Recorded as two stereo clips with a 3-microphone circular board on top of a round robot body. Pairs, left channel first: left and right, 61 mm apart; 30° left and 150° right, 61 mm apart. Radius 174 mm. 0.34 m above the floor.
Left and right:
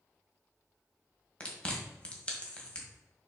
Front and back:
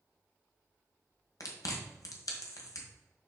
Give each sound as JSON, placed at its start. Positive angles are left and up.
{"t": 1.4, "sound": "chewing", "azimuth_deg": 20, "distance_m": 1.8}